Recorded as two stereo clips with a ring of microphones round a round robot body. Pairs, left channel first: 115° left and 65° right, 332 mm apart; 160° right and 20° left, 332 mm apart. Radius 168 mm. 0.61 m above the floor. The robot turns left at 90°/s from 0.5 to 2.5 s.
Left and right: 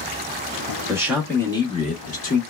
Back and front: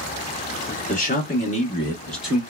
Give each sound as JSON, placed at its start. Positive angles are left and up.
{"t": 0.9, "sound": "a man speaking", "azimuth_deg": -130, "distance_m": 1.1}